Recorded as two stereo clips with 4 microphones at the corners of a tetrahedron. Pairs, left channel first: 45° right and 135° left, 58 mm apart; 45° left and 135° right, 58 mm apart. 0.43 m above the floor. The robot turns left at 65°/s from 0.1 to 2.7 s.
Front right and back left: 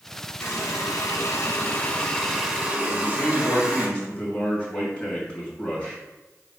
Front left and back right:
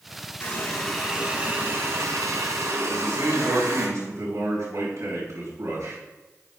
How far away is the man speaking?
About 3.5 m.